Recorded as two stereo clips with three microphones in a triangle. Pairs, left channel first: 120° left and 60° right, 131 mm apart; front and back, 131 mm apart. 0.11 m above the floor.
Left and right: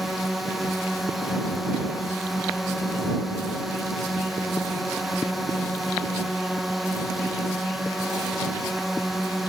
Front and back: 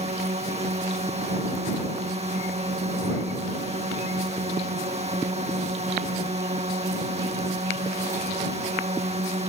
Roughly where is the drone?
Behind right.